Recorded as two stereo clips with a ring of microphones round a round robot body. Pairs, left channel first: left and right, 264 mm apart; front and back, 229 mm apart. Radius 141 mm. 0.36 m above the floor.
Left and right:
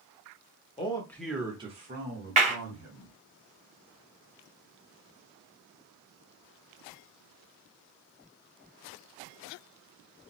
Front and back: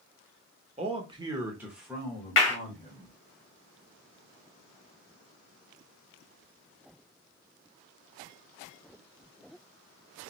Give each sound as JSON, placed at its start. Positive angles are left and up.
{"t": 0.8, "sound": "a man speaking", "azimuth_deg": 140, "distance_m": 1.0}
{"t": 2.4, "sound": "a clap", "azimuth_deg": -25, "distance_m": 1.5}